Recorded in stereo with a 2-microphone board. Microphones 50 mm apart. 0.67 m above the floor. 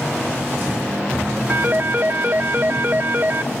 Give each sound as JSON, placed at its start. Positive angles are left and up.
{"t": 1.5, "sound": "a phone ringing", "side_deg": -40, "distance_m": 0.6}